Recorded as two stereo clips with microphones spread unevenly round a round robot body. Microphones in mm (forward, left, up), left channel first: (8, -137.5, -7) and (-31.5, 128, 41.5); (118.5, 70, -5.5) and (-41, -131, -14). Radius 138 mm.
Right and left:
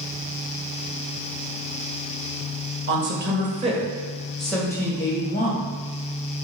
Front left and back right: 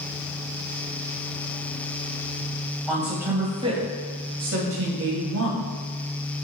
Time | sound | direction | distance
2.9 | a man speaking | 140° left | 1.9 m